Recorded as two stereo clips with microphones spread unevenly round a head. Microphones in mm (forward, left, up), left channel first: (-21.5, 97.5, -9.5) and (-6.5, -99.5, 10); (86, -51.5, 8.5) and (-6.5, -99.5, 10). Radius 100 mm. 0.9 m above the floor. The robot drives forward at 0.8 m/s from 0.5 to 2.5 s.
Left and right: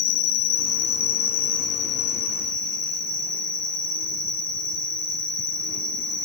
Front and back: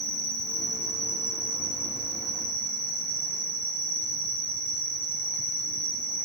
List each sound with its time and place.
0.0 s an insect: 110° left, 1.0 m; by 6.3 s 155° left, 2 m